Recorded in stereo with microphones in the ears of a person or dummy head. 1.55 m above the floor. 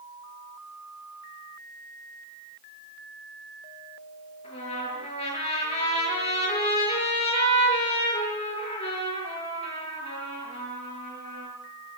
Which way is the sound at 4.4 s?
35° left (ahead or behind).